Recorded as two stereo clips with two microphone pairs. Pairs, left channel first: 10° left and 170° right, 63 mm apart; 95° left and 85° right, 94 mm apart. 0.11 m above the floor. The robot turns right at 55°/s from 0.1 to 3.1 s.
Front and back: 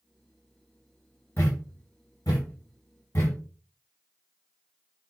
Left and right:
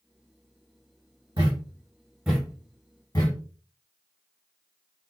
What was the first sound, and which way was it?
A thud, 50° right.